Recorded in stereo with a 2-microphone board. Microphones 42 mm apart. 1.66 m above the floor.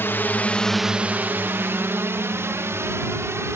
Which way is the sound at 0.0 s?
60° left (ahead or behind).